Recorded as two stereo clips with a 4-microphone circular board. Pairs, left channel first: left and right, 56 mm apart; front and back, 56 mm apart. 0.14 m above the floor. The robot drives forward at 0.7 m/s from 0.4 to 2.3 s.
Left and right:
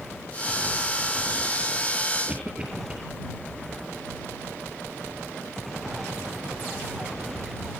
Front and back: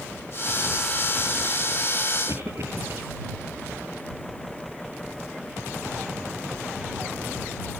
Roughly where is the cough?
Behind.